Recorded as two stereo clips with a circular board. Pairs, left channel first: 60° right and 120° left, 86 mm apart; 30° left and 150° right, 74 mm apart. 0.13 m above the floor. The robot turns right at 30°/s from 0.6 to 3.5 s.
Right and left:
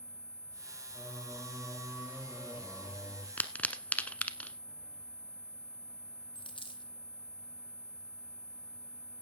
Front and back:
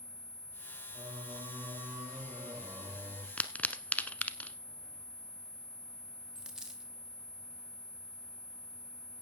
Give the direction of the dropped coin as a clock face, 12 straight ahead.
2 o'clock.